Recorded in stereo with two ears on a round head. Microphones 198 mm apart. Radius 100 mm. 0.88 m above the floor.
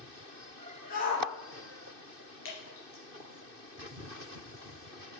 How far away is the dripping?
About 3 m.